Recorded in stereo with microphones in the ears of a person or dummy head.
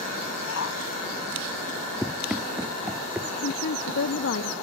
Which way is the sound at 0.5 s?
80° left.